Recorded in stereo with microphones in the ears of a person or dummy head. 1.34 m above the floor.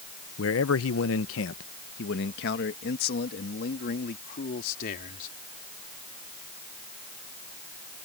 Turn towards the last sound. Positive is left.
turn(degrees=50)  # may be behind; listen again after turning